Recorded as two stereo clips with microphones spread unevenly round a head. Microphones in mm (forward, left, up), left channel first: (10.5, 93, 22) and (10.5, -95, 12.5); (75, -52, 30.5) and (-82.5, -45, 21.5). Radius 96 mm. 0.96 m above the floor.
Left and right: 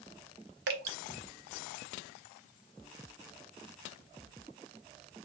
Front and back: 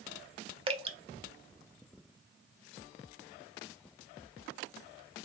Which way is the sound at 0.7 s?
125° right.